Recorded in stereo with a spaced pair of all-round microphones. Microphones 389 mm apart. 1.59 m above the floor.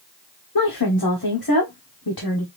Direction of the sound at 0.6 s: 65° left (ahead or behind).